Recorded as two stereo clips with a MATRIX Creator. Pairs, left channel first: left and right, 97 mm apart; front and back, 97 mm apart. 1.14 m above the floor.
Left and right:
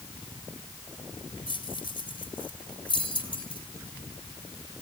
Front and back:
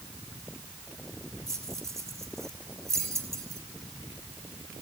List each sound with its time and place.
1.5 s keys jangling: 120° left, 3.5 m